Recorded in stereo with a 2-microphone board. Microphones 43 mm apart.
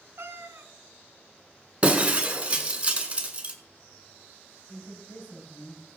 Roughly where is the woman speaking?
Left.